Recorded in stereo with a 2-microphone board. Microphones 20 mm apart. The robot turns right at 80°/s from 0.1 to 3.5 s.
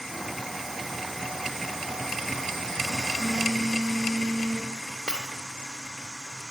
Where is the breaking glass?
60° left (ahead or behind), 3 m.